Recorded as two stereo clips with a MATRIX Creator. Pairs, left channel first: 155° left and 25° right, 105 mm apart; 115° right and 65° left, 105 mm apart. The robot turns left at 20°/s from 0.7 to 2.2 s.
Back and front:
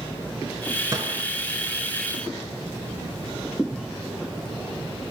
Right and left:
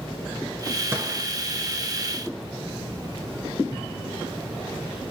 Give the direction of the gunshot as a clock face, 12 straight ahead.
11 o'clock.